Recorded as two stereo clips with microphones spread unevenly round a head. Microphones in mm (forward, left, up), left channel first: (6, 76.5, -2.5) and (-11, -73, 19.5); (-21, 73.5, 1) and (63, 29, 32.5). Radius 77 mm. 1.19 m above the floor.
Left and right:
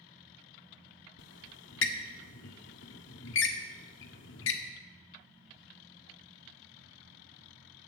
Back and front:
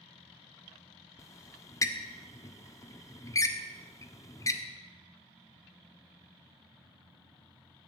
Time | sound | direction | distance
1.2 | a squeak | 90° left | 1.4 m